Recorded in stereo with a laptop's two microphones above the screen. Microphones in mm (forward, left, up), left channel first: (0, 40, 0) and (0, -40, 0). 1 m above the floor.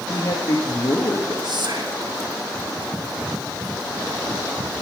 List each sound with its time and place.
0.1 s a man speaking: 60° left (ahead or behind), 1.6 m
1.4 s whispering: 65° right (ahead or behind), 1.4 m